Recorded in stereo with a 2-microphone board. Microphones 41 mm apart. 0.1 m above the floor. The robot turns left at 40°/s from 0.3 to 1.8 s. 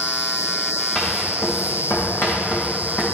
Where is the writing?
20° left (ahead or behind), 3.5 m; by 3.0 s 55° left (ahead or behind), 3.5 m.